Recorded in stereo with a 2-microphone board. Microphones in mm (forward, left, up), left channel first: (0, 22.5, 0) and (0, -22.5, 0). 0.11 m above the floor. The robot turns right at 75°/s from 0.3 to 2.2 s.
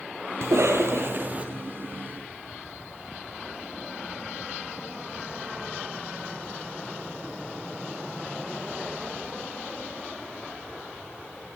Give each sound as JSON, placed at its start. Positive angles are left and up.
{"t": 0.4, "sound": "a cough", "azimuth_deg": -105, "distance_m": 3.0}